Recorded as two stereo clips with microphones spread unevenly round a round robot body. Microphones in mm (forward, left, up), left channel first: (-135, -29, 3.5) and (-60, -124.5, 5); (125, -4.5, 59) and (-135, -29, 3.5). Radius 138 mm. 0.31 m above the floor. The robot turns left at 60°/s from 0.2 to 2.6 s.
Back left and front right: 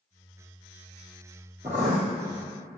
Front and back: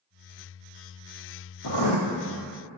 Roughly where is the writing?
Ahead.